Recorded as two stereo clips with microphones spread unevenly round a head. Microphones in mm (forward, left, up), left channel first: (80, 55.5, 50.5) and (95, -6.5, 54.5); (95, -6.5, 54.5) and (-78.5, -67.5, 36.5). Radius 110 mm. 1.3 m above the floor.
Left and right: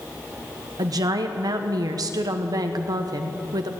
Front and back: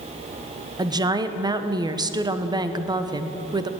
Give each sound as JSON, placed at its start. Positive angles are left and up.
{"t": 0.8, "sound": "a woman speaking", "azimuth_deg": -95, "distance_m": 1.0}